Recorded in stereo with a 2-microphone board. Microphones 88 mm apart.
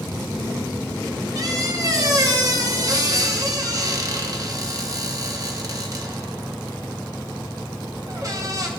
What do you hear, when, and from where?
1.4 s a squeak: 40° right (ahead or behind), 1.1 m